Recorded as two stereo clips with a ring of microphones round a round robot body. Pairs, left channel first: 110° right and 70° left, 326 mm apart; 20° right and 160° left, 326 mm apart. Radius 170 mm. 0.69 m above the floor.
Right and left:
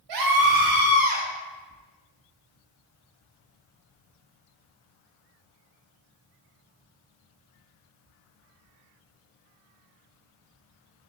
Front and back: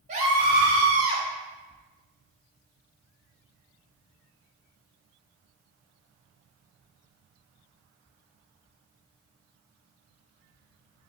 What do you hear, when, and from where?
0.1 s a scream: 90° left, 2.5 m; by 1.2 s 115° left, 3 m